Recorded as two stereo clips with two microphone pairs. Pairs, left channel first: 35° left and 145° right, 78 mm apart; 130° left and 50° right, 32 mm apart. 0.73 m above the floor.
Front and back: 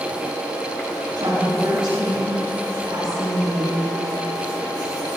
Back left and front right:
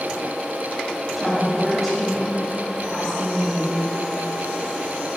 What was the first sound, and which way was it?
A woman speaking, 135° right.